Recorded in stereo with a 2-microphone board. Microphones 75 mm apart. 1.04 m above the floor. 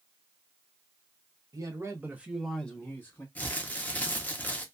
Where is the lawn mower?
No lawn mower in this recording.